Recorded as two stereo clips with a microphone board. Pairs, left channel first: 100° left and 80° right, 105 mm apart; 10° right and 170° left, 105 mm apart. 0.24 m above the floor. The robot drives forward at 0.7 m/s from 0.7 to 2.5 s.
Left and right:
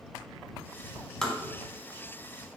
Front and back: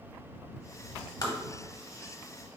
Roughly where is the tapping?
Ahead.